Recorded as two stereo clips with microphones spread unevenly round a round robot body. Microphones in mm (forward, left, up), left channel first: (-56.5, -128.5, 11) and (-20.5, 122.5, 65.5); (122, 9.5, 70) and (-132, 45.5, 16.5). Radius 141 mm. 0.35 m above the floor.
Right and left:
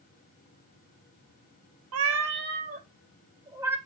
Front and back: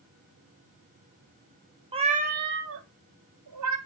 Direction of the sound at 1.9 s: 100° left.